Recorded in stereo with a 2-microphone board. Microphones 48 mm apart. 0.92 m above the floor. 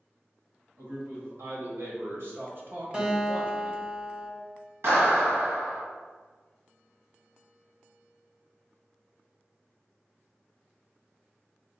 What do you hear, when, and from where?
0.8 s a man speaking: 70° right (ahead or behind), 1.8 m; by 3.8 s 10° right (ahead or behind), 0.8 m
2.9 s a guitar: 25° right (ahead or behind), 1.3 m
4.8 s a clap: 65° right (ahead or behind), 1.4 m